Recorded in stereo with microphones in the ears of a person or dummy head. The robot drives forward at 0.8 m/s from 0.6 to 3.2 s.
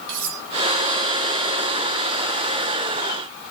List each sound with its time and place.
0.1 s cutlery clinking: 65° right (ahead or behind), 2.5 m